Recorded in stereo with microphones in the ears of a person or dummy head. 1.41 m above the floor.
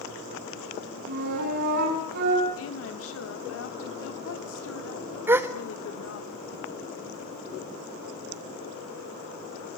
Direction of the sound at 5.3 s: 10° right (ahead or behind).